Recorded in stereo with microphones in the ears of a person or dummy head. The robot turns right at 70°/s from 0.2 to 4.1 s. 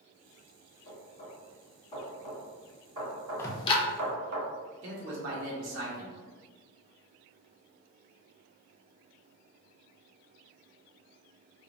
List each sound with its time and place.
0.8 s knocking: 75° left (ahead or behind), 1.8 m; by 4.4 s 55° right (ahead or behind), 1.8 m
3.4 s ticking: 15° left (ahead or behind), 0.5 m; by 3.8 s 40° left (ahead or behind), 0.5 m
4.8 s a man speaking: 70° right (ahead or behind), 0.8 m